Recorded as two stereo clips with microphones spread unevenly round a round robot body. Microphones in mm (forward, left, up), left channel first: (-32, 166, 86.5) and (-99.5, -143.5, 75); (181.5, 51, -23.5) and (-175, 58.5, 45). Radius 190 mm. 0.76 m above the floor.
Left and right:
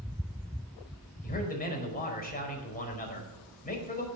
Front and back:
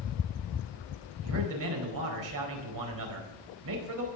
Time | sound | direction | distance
1.2 | a man speaking | 140° left | 4.5 m